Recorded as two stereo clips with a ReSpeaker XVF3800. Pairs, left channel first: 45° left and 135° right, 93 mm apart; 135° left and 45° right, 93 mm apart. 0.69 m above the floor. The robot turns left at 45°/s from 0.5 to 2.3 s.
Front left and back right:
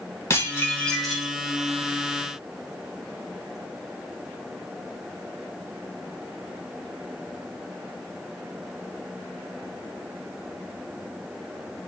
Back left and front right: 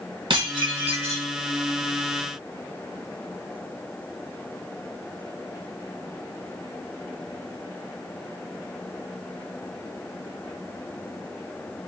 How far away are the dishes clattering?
About 3.5 m.